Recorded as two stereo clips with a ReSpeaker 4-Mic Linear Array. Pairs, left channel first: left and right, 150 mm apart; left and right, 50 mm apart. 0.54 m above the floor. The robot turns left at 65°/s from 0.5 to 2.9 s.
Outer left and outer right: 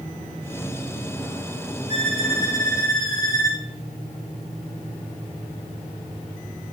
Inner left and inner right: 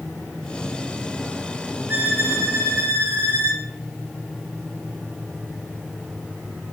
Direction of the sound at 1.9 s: 45° right.